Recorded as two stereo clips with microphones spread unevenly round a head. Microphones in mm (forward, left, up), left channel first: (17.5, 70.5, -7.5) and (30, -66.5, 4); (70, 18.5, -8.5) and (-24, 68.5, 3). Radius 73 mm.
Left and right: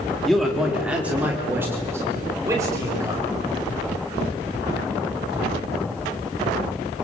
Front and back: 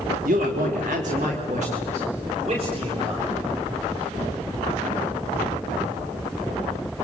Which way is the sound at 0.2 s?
175° right.